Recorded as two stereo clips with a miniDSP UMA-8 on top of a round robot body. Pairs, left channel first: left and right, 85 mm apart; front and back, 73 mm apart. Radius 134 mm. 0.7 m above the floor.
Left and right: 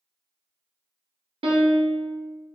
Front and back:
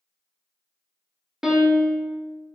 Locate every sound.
1.4 s a piano: 95° right, 0.7 m